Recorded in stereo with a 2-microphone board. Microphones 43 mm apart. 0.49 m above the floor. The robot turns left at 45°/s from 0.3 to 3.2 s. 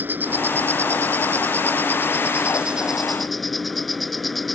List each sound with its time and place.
0.0 s an insect: 50° right; by 4.6 s straight behind